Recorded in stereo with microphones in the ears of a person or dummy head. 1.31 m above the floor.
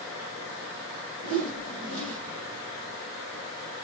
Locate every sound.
1.2 s a whoosh: 90° right, 2.0 m